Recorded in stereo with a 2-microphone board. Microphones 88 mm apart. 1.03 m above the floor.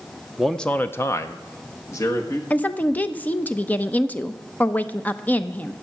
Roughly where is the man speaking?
Centre.